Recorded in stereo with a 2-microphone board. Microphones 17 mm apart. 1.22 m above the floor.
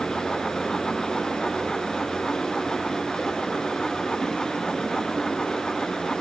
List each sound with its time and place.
0.0 s running water: 50° left (ahead or behind), 6.5 m